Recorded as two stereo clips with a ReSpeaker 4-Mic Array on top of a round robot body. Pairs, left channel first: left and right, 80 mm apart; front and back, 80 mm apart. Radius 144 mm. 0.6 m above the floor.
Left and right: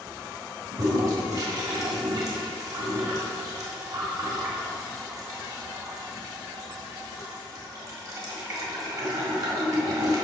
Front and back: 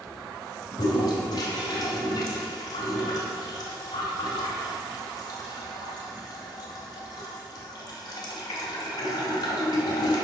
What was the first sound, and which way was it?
A toilet flushing, 40° right.